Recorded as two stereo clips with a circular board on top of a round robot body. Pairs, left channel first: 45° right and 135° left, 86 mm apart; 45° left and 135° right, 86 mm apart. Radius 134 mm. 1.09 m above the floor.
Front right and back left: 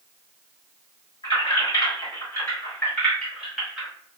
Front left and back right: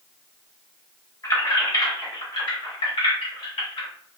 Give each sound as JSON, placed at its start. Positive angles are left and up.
{"t": 1.2, "sound": "keys jangling", "azimuth_deg": -5, "distance_m": 1.6}